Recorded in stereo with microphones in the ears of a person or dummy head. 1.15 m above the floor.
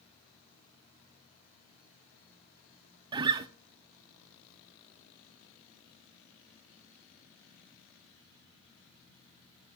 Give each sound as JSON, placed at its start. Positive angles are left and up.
{"t": 3.1, "sound": "a guitar", "side_deg": -30, "distance_m": 0.6}